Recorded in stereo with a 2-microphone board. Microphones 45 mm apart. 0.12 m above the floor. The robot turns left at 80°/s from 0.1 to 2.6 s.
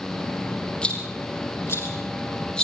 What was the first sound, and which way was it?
A rattle, 15° left (ahead or behind).